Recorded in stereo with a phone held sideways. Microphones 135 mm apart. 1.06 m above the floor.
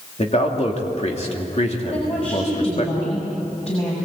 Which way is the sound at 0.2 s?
50° left (ahead or behind).